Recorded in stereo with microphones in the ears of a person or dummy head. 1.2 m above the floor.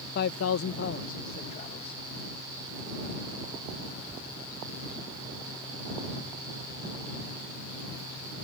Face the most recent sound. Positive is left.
turn(degrees=25)  # may be behind; listen again after turning